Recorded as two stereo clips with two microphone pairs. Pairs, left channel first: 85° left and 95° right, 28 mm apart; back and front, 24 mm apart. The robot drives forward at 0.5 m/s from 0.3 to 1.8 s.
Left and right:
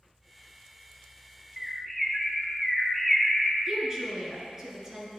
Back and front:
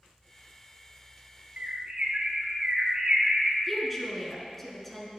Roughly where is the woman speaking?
Behind right.